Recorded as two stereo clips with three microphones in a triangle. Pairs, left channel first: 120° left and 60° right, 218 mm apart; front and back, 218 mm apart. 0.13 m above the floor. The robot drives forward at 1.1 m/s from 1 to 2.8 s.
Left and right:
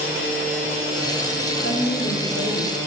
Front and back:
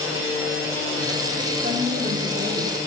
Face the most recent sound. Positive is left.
turn(degrees=140)